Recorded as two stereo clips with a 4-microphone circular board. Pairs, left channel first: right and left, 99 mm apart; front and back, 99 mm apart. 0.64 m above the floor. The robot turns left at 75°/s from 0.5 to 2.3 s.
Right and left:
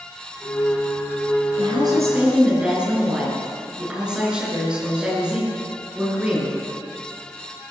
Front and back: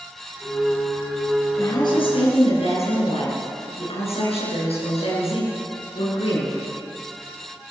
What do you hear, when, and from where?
1.6 s a woman speaking: 65° left, 9 m; by 6.6 s 10° left, 9 m